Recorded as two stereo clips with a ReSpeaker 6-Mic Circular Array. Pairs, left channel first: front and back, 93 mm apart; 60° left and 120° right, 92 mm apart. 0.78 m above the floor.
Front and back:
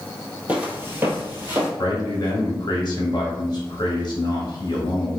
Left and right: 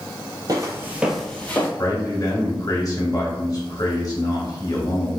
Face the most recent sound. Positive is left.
turn(degrees=20)